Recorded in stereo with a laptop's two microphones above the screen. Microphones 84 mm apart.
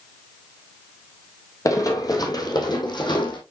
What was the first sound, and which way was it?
Running footsteps, 40° left (ahead or behind).